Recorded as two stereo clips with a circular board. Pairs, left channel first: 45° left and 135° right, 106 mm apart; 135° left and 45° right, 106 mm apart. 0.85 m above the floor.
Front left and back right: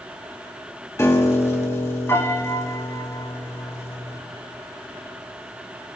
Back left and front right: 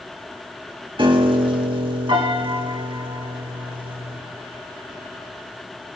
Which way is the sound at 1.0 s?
15° right.